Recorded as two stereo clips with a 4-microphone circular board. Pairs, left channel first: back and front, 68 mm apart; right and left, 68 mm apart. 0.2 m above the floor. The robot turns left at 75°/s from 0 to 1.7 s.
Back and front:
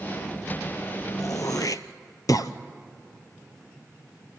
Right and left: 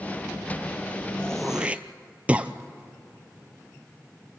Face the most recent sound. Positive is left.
turn(degrees=160)